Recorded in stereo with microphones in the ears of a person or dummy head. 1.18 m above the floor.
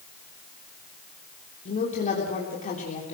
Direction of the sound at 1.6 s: 35° left (ahead or behind).